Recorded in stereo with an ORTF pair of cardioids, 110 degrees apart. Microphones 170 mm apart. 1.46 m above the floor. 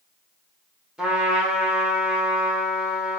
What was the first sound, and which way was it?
A trumpet, 5° right.